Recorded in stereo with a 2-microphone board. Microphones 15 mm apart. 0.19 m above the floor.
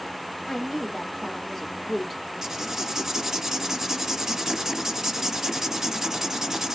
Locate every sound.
0.5 s a woman speaking: 40° left (ahead or behind), 1.9 m; by 2.2 s 20° left (ahead or behind), 1.6 m
2.4 s writing: 30° right (ahead or behind), 1.2 m